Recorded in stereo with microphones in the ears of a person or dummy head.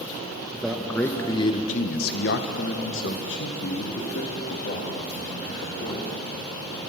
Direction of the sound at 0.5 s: 5° right (ahead or behind).